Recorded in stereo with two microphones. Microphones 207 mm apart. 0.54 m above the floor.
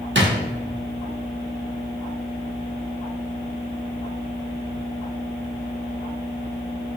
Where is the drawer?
70° right (ahead or behind), 0.6 m.